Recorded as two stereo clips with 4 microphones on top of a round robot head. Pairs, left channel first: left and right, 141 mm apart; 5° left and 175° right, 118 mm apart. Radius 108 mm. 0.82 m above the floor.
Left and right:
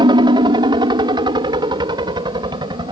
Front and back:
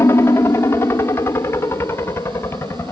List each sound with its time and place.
0.0 s a helicopter: 55° right